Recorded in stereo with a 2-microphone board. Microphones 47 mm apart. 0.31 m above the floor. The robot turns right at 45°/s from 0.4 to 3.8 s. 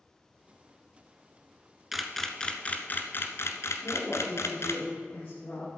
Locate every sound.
1.9 s a camera shutter: 5° right (ahead or behind), 0.9 m; by 4.8 s 80° left, 0.9 m
3.8 s a woman speaking: 60° left (ahead or behind), 4.5 m